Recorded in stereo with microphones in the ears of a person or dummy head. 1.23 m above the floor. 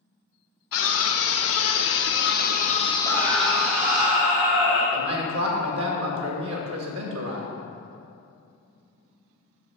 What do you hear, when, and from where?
0.7 s a scream: 75° left (ahead or behind), 1.3 m; by 4.0 s 20° right (ahead or behind), 0.8 m
3.0 s a scream: 15° right (ahead or behind), 3 m
4.9 s a man speaking: 70° right (ahead or behind), 1.7 m